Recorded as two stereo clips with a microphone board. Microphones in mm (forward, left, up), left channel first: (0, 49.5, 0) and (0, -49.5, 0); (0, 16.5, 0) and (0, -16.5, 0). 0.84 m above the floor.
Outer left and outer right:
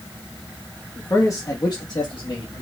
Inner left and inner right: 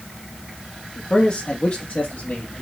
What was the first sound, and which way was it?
A man speaking, 20° left (ahead or behind).